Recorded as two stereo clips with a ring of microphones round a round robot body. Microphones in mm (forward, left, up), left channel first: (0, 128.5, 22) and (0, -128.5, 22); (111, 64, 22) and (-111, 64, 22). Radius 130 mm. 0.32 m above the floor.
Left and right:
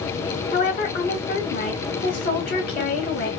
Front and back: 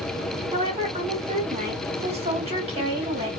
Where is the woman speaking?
130° left, 2 m.